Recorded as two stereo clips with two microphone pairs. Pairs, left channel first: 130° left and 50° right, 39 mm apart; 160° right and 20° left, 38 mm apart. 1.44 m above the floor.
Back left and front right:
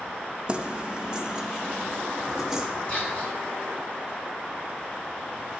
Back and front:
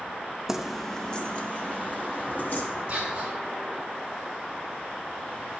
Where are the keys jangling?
40° right, 0.6 m; by 2.7 s 130° right, 1.5 m.